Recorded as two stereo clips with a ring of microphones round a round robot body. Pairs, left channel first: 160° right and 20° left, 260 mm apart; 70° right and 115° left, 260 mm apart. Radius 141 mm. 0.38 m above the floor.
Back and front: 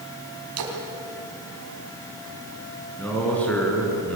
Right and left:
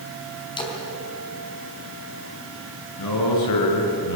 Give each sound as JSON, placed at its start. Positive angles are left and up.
{"t": 0.6, "sound": "a splash", "azimuth_deg": 5, "distance_m": 4.0}
{"t": 3.0, "sound": "a man speaking", "azimuth_deg": -75, "distance_m": 5.5}